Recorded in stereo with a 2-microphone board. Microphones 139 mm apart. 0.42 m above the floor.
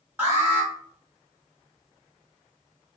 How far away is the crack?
I don't hear a crack.